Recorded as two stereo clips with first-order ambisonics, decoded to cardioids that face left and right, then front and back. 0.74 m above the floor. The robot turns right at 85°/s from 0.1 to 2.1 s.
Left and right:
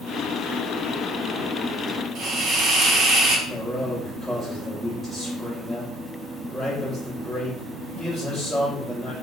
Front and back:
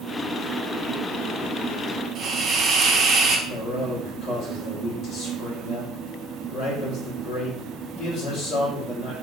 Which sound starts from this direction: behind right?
A hiss, at 2.1 s.